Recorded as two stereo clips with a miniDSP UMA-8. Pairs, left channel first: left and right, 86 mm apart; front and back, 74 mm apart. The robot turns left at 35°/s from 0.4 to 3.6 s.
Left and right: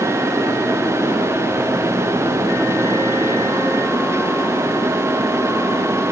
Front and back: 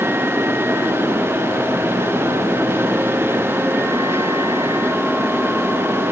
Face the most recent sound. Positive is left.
No sound to turn to.